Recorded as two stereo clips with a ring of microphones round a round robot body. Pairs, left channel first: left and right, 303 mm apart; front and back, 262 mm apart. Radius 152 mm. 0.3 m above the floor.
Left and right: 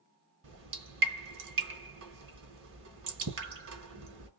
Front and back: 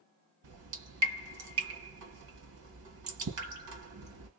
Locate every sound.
0.4 s dripping: 140° right, 2.0 m